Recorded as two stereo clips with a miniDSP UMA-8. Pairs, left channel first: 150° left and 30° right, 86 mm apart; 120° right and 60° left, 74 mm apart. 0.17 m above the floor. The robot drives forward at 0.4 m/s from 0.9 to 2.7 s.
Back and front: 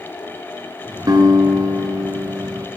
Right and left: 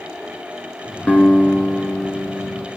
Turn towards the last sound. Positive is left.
turn(degrees=-75)